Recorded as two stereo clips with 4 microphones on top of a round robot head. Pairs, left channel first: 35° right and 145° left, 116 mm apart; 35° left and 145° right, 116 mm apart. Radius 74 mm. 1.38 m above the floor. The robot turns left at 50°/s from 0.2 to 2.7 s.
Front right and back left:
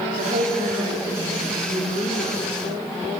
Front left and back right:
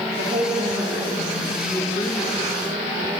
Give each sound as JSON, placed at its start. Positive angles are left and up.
{"t": 0.2, "sound": "a woman speaking", "azimuth_deg": -175, "distance_m": 4.5}